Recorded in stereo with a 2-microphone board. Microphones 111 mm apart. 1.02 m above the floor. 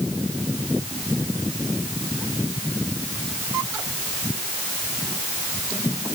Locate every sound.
Only background noise.